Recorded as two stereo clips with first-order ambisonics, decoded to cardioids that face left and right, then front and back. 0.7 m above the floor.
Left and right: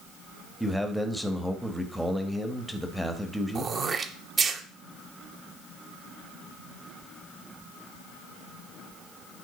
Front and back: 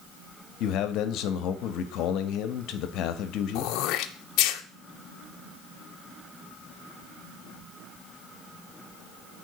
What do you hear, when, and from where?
0.6 s a man speaking: straight ahead, 1.0 m
3.5 s throat clearing: 25° right, 0.8 m